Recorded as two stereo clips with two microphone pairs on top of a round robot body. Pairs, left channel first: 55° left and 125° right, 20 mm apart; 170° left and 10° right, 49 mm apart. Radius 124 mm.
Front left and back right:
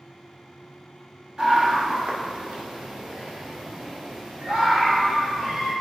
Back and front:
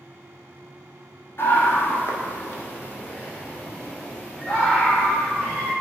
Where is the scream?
175° right, 1.6 m; by 5.7 s 130° right, 5.5 m.